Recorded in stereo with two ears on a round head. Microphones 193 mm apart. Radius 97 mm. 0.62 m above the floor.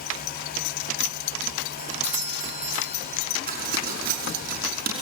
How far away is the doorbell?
About 2.5 m.